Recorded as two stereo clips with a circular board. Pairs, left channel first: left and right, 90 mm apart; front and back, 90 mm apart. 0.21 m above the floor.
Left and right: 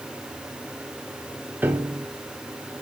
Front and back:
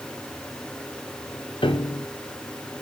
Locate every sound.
1.6 s a piano: 20° right, 1.1 m